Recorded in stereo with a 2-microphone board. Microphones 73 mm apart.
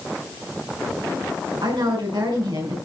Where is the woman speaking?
80° right, 5.5 m.